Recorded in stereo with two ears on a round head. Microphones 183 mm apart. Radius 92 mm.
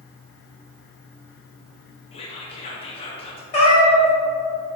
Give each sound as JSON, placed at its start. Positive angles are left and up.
{"t": 2.1, "sound": "whispering", "side_deg": 30, "distance_m": 0.5}
{"t": 3.5, "sound": "a cat meowing", "side_deg": 30, "distance_m": 0.8}